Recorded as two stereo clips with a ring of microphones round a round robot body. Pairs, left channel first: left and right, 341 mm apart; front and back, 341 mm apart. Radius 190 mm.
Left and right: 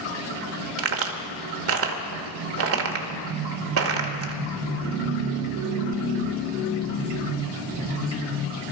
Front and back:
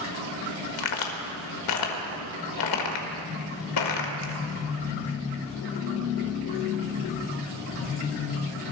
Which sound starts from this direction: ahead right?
A crack, at 0.8 s.